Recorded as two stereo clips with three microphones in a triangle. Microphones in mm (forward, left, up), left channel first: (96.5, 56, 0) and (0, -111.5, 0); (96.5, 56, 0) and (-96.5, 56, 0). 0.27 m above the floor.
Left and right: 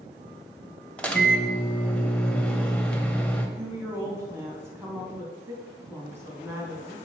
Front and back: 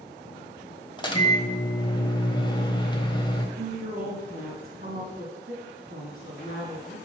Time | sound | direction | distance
1.0 | a microwave | 15° right | 0.9 m
3.6 | a woman speaking | 165° left | 2.5 m